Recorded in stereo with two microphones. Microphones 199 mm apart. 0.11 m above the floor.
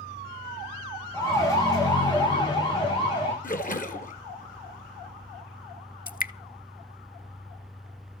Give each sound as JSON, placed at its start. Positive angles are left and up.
{"t": 1.1, "sound": "a siren", "side_deg": 15, "distance_m": 8.5}
{"t": 3.4, "sound": "a splash", "side_deg": 45, "distance_m": 2.0}
{"t": 6.1, "sound": "dripping", "side_deg": 45, "distance_m": 0.6}